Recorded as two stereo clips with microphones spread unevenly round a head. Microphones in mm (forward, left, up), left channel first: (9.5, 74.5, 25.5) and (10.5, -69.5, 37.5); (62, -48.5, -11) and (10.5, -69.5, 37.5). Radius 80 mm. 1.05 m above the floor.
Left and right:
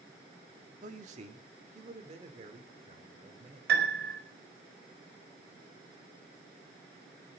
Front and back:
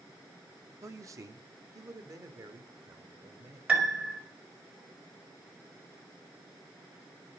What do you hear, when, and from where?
0.8 s a man speaking: 130° right, 1.8 m; by 3.6 s 140° right, 3.5 m
3.7 s a piano: 85° right, 5 m